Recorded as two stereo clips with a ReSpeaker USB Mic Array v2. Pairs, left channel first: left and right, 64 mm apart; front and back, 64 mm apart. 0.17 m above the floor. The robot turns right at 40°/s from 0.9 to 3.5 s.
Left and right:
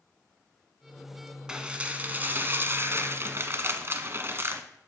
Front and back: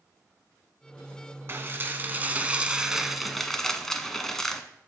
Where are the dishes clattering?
160° right, 1.0 m; by 4.6 s 80° right, 1.0 m.